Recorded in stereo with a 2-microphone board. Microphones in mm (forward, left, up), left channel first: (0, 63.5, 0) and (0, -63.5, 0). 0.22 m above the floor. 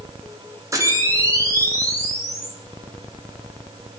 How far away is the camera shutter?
About 6.5 m.